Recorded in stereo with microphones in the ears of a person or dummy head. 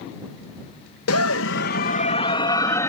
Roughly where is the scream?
Left.